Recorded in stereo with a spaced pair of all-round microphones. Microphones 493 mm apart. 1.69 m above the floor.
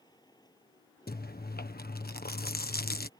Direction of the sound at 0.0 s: 10° left (ahead or behind).